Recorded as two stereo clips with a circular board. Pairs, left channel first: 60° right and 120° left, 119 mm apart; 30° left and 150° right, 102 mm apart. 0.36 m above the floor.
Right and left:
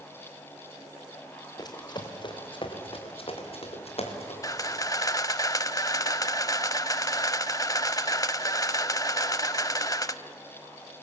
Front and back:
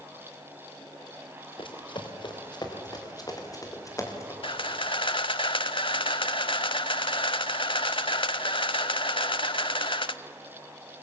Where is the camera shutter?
Straight ahead, 0.6 m.